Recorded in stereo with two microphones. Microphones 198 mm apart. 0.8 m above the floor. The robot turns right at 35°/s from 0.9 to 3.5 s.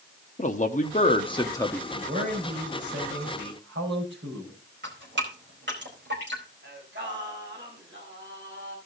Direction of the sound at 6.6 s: 70° right (ahead or behind).